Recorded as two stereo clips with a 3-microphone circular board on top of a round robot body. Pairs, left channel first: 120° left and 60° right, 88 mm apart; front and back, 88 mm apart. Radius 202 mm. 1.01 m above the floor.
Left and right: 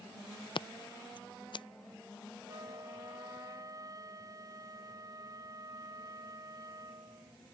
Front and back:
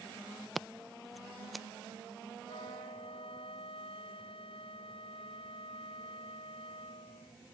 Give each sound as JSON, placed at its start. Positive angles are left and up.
{"t": 0.6, "sound": "scissors", "azimuth_deg": 90}
{"t": 2.5, "sound": "a flute", "azimuth_deg": -10}